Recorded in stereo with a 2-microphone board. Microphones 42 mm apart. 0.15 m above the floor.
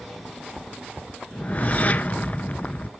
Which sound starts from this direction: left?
A whoosh, at 1.3 s.